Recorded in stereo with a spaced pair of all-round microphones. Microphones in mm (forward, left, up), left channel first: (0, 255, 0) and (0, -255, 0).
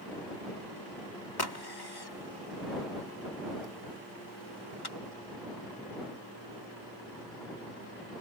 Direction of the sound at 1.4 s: 50° left (ahead or behind).